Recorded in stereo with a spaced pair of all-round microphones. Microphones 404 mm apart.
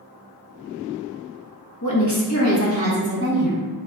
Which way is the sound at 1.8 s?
50° left (ahead or behind).